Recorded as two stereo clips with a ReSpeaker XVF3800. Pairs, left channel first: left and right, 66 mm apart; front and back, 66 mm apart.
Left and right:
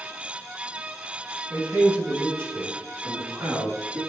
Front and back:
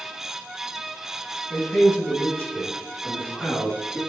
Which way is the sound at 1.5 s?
40° right.